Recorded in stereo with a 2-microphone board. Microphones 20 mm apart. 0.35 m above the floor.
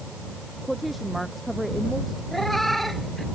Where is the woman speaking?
5° right (ahead or behind).